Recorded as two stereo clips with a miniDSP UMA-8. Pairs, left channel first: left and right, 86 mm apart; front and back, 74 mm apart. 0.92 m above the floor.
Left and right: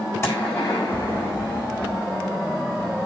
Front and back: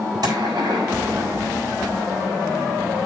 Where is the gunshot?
150° left, 6.5 m.